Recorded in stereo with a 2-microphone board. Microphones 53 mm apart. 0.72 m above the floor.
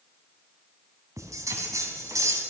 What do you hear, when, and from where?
1.2 s a bell: 80° right, 2.5 m